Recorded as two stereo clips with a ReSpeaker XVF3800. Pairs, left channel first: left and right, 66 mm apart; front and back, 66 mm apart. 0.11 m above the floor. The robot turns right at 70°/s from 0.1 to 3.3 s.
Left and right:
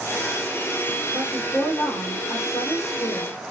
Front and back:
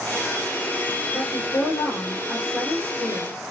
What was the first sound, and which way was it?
A woman speaking, 15° right.